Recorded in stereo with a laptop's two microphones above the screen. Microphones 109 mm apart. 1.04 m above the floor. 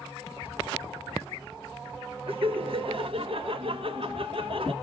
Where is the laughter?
55° right (ahead or behind), 1.0 m.